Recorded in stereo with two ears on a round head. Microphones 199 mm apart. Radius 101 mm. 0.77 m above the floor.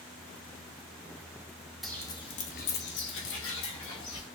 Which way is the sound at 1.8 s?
Centre (ahead or behind).